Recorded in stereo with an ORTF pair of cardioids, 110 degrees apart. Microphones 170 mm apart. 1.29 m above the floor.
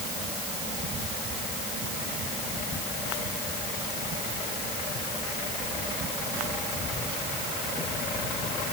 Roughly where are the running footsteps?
I don't hear running footsteps.